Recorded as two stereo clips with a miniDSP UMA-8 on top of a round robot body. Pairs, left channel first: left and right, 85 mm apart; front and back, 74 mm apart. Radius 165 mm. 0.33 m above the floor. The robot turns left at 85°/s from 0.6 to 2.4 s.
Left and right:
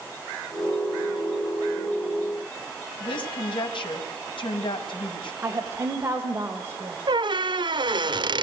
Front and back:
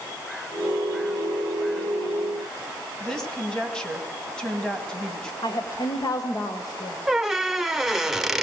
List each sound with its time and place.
3.0 s a woman speaking: 80° left, 4 m
5.4 s a woman speaking: 30° right, 2 m
7.1 s a squeak: 95° right, 1.2 m